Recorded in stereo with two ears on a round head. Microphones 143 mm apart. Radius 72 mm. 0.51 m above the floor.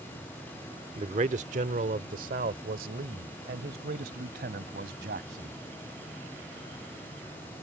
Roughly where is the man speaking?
Right.